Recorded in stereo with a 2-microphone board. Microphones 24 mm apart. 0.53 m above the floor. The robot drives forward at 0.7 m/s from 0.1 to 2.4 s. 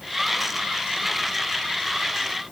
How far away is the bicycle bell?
No bicycle bell in this recording.